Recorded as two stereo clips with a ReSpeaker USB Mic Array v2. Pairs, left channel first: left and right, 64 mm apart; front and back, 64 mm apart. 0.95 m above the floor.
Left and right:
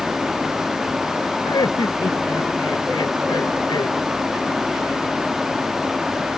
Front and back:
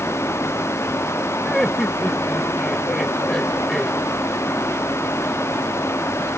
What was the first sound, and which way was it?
Laughter, 85° left.